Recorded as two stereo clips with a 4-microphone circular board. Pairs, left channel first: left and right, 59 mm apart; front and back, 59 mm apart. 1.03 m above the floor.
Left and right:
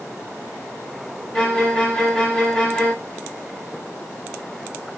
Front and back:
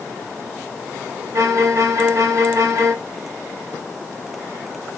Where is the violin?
165° left, 0.8 m.